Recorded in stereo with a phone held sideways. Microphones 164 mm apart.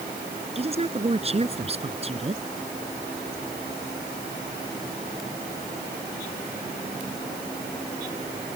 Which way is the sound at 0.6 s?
35° right (ahead or behind).